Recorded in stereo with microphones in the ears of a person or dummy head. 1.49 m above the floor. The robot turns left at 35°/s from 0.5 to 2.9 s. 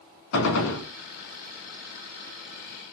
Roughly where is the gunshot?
Left.